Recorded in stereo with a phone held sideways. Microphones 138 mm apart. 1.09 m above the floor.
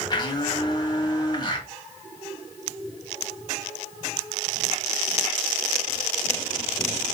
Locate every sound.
0.1 s a blender: 30° left (ahead or behind), 1.2 m